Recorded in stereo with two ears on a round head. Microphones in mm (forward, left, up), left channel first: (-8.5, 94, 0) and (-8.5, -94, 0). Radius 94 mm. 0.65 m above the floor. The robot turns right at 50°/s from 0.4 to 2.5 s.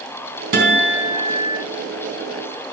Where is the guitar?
40° right, 3.5 m; by 1.6 s 10° left, 3.5 m.